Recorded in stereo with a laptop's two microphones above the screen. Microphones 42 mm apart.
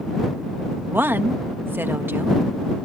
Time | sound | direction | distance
0.9 | a woman speaking | 60° right (ahead or behind) | ?